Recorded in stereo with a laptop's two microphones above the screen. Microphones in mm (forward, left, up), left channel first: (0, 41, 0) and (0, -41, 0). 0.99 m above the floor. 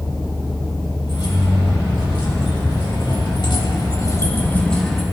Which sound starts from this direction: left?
Keys jangling, at 1.1 s.